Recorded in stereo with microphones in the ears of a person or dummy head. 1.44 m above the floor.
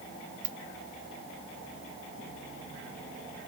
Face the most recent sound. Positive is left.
turn(degrees=-55)  # may be behind; listen again after turning